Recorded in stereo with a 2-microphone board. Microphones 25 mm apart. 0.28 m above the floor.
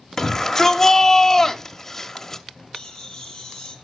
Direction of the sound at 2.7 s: 15° left (ahead or behind).